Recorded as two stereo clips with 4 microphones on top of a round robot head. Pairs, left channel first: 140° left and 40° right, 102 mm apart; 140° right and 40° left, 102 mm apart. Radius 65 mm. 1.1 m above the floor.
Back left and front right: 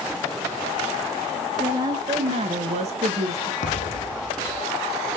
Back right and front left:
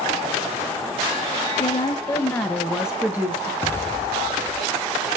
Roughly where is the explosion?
Behind left.